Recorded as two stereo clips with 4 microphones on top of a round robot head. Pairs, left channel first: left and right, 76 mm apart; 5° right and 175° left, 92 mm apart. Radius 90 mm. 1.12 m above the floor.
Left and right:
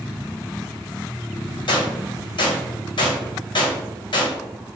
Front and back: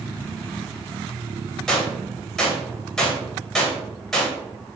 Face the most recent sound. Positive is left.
turn(degrees=80)